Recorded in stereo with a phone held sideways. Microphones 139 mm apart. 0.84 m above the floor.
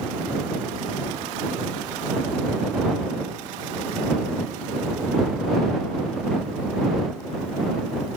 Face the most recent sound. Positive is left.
No sound to turn to.